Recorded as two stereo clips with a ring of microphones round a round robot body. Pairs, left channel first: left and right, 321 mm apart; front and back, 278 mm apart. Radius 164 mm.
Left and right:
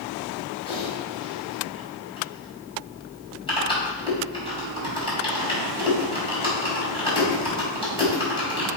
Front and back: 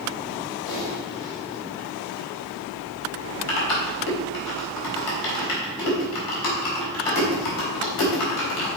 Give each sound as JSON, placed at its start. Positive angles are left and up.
{"t": 0.7, "sound": "typing on a keyboard", "azimuth_deg": 15, "distance_m": 3.5}